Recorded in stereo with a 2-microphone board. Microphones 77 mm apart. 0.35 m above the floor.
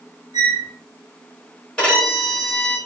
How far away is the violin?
About 1.5 m.